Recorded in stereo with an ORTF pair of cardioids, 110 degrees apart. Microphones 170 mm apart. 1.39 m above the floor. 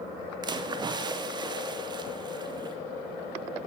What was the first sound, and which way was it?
A splash, 25° right.